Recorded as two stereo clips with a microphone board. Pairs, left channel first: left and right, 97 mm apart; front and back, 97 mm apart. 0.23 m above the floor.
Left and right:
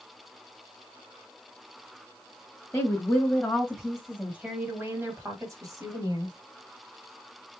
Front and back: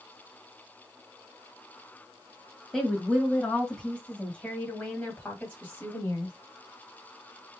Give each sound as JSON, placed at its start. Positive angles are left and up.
{"t": 2.7, "sound": "a woman speaking", "azimuth_deg": 90, "distance_m": 1.4}